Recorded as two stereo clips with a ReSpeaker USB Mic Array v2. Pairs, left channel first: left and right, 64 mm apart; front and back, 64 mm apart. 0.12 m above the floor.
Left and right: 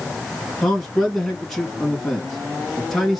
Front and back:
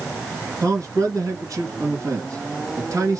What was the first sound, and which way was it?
A man speaking, straight behind.